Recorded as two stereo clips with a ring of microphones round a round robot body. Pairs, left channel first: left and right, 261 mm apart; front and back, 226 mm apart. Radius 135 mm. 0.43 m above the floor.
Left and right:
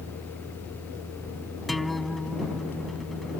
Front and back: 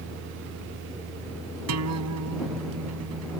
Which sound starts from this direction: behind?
A guitar, at 1.7 s.